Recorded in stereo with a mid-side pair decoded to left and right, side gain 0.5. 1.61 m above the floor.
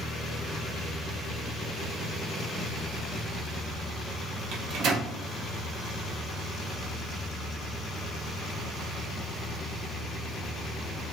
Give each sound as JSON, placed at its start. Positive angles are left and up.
{"t": 4.5, "sound": "a microwave", "azimuth_deg": -65, "distance_m": 0.6}